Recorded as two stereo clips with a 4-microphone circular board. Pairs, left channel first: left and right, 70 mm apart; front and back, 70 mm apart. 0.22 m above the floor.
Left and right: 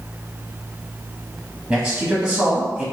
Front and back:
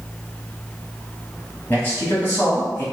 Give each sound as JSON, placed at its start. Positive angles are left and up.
{"t": 1.7, "sound": "a man speaking", "azimuth_deg": -15, "distance_m": 1.2}